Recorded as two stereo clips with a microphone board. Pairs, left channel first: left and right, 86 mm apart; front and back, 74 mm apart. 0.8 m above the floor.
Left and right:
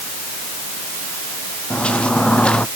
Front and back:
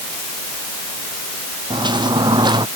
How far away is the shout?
No shout in this recording.